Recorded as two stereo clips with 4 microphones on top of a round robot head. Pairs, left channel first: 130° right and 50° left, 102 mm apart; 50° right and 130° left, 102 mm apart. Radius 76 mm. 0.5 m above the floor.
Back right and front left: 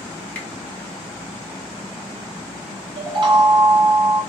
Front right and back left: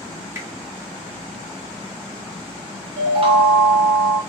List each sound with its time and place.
0.3 s a finger snap: 170° left, 1.3 m
3.0 s a chime: 95° left, 0.6 m